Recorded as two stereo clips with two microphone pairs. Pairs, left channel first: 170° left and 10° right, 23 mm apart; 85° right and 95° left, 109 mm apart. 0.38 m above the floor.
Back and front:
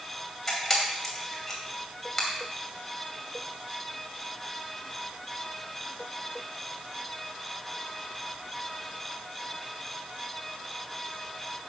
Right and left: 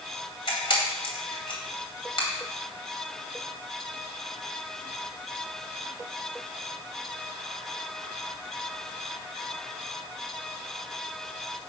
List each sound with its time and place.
0.5 s a camera shutter: 105° right, 2.5 m